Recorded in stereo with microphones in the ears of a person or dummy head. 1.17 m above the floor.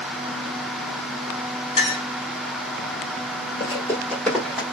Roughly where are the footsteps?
Left.